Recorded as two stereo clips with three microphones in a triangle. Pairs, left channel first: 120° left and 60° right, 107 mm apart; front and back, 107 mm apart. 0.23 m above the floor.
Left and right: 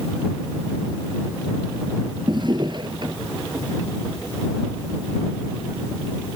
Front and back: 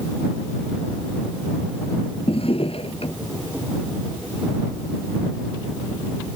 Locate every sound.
2.3 s a drawer: 20° right